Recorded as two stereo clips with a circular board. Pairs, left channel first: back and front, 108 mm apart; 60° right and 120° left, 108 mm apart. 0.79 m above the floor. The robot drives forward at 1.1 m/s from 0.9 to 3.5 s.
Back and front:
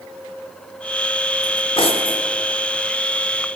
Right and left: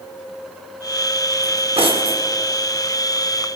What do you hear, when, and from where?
1.4 s cutlery clinking: 130° left, 0.8 m; by 2.2 s 160° left, 1.5 m